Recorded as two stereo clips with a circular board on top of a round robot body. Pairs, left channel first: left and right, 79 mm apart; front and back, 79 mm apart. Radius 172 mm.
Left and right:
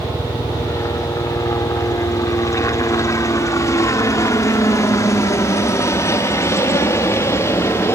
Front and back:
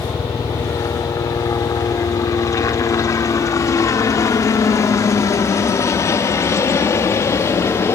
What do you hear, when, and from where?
0.0 s a helicopter: 45° left